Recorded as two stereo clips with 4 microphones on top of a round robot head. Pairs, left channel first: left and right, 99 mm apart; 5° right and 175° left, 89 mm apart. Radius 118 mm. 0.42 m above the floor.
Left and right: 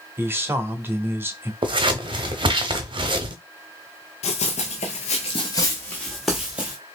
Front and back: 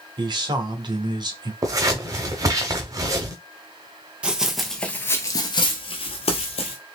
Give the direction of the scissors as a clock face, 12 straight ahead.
4 o'clock.